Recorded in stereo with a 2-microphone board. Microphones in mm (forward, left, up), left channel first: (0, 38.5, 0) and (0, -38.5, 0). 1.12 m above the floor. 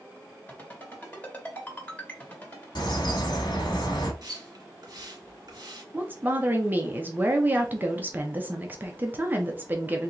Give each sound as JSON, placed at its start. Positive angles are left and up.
{"t": 0.5, "sound": "a ringtone", "side_deg": 25, "distance_m": 2.0}
{"t": 2.8, "sound": "a bird", "side_deg": 75, "distance_m": 1.5}
{"t": 4.2, "sound": "a splash", "side_deg": -55, "distance_m": 1.5}
{"t": 5.9, "sound": "a woman speaking", "side_deg": -25, "distance_m": 0.7}